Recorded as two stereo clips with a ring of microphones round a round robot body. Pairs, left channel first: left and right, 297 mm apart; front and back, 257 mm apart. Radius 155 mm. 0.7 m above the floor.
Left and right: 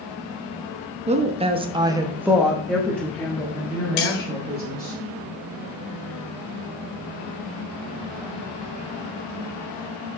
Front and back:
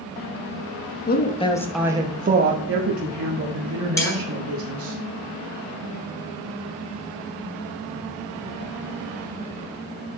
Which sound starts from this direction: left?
Cutlery clinking, at 4.0 s.